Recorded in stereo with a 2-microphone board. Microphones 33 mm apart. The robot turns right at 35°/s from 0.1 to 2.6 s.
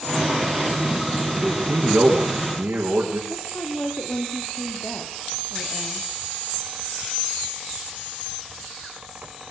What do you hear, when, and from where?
1.4 s a man speaking: 105° right, 4.5 m; by 3.2 s 65° right, 4.5 m
3.3 s a woman speaking: 70° left (ahead or behind), 4 m